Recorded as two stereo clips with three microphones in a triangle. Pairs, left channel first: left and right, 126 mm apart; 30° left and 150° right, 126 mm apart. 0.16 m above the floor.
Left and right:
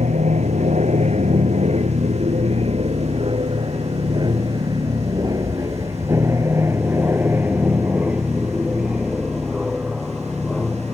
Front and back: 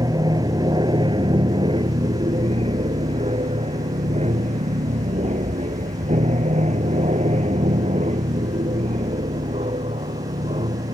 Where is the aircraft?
95° right; by 11.0 s 175° left.